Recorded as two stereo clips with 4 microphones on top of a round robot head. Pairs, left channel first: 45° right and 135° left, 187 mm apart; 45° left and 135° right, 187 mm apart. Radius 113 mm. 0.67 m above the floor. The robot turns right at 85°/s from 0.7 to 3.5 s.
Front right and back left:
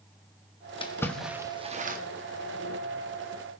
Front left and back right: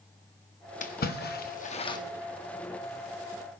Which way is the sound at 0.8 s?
10° left.